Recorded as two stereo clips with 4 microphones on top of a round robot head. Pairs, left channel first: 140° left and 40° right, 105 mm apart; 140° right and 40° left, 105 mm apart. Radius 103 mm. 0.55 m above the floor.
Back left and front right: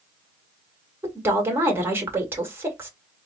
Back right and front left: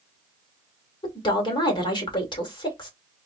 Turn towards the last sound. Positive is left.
turn(degrees=-105)